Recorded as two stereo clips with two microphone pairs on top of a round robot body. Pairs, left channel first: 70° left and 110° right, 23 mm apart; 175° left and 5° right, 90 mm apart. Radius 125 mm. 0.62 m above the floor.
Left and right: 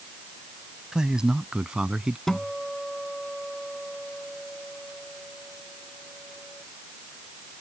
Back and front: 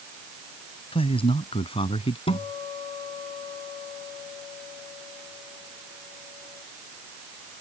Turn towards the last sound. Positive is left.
turn(degrees=150)